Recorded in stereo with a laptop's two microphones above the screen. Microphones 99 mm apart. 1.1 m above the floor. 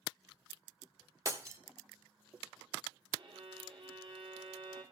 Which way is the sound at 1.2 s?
30° right (ahead or behind).